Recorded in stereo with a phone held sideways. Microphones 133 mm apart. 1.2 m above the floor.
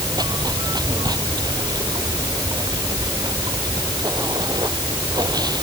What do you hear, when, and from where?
0.0 s running water: 30° right (ahead or behind)